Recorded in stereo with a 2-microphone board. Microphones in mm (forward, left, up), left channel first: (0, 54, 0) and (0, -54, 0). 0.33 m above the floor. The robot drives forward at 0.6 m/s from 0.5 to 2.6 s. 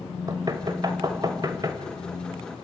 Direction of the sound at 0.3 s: 35° right (ahead or behind).